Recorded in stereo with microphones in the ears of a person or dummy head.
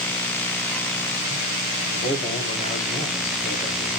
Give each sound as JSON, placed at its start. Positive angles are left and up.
{"t": 1.9, "sound": "a man speaking", "side_deg": 45, "distance_m": 3.5}